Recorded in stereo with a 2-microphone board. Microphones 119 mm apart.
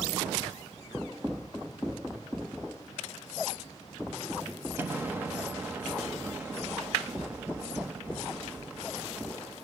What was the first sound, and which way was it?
An explosion, 15° right (ahead or behind).